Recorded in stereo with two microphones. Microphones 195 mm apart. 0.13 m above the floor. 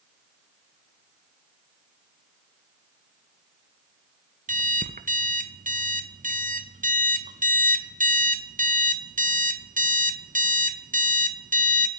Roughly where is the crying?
I don't hear crying.